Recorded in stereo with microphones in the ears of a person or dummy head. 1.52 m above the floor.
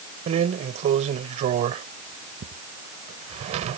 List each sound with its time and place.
0.3 s a drawer: 40° right (ahead or behind)